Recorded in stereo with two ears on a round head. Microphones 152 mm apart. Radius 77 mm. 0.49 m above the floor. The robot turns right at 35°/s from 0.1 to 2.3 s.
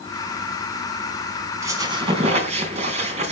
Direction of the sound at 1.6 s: 15° right (ahead or behind).